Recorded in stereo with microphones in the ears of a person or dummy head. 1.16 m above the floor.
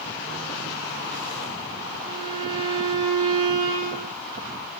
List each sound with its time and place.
2.0 s a violin: 25° right (ahead or behind), 2 m